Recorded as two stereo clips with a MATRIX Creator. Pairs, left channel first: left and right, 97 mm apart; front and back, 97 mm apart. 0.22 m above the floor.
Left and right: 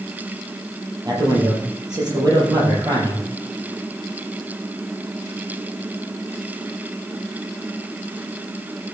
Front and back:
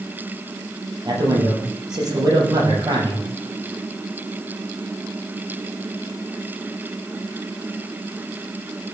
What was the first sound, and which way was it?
A man speaking, 135° right.